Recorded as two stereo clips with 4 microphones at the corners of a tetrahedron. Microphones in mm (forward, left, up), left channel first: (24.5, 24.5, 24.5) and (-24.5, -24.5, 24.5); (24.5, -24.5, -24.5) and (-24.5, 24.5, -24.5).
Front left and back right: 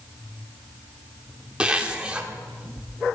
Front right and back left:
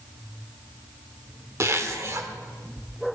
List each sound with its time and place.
1.6 s a zipper: 155° left, 1.0 m